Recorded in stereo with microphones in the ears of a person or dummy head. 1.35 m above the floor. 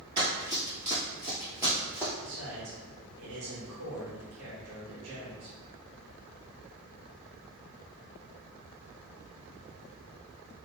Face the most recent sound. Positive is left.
turn(degrees=-65)  # may be behind; listen again after turning